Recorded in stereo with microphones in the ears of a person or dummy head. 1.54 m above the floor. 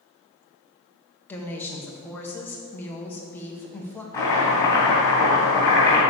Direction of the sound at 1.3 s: 10° left (ahead or behind).